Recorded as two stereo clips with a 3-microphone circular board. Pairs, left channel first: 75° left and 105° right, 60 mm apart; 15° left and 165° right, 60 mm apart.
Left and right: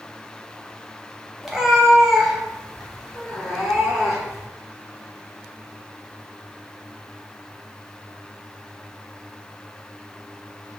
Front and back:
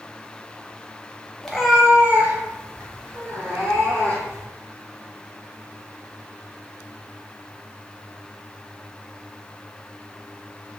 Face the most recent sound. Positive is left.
turn(degrees=170)